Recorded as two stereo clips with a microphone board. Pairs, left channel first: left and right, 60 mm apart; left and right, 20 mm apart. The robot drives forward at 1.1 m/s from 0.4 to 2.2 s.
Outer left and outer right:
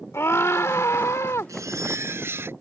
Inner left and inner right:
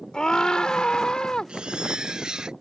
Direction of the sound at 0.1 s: 50° left (ahead or behind).